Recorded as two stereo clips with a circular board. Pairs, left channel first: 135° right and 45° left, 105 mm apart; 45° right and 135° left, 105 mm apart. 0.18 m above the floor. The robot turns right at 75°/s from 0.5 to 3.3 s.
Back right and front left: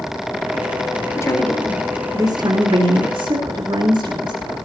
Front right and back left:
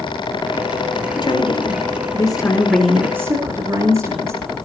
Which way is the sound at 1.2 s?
80° right.